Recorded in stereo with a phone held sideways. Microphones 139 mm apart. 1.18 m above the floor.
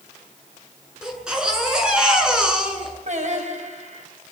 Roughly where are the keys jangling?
I don't hear keys jangling.